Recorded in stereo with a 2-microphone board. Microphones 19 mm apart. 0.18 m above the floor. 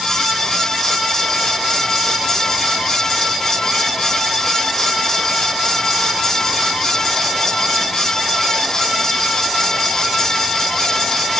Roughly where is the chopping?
I don't hear chopping.